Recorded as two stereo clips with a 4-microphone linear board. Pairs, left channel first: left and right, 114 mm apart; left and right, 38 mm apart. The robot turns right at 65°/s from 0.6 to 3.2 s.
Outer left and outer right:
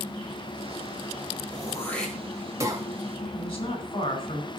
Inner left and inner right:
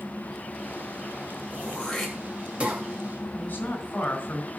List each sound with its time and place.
1.5 s throat clearing: 35° left (ahead or behind), 2.5 m; by 2.8 s 40° right (ahead or behind), 2.5 m
3.4 s a woman speaking: 50° left (ahead or behind), 4 m